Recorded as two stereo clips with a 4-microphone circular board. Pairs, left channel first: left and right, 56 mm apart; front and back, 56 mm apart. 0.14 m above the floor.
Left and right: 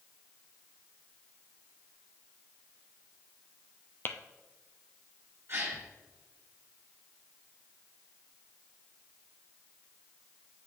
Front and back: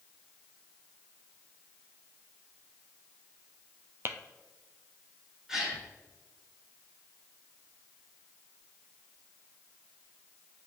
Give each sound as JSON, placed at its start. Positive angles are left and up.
{"t": 4.0, "sound": "tapping", "azimuth_deg": 135, "distance_m": 0.6}
{"t": 5.5, "sound": "a gasp", "azimuth_deg": -110, "distance_m": 2.5}